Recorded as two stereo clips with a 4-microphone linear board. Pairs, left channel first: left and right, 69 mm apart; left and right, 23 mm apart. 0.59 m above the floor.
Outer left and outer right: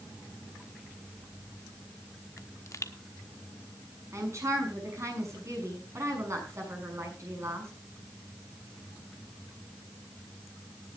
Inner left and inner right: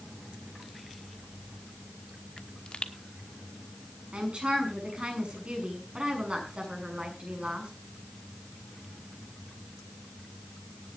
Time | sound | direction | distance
2.4 | a pop | 45° left (ahead or behind) | 1.0 m
4.1 | a woman speaking | 45° right (ahead or behind) | 6 m